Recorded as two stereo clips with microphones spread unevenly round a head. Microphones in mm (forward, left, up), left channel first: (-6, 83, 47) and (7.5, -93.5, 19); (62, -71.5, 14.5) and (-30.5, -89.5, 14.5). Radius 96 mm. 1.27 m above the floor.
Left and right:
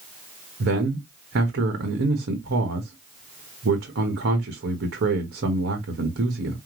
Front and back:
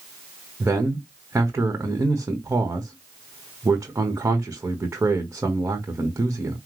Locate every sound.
0.6 s a man speaking: 105° right, 1.3 m